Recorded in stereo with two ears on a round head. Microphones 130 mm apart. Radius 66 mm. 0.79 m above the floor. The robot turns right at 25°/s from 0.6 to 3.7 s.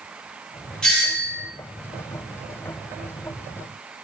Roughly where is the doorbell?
Centre.